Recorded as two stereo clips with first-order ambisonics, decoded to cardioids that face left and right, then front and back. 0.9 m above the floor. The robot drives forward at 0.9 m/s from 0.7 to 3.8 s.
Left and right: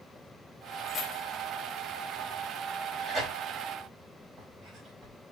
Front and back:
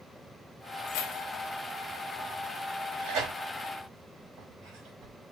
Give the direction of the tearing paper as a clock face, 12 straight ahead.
6 o'clock.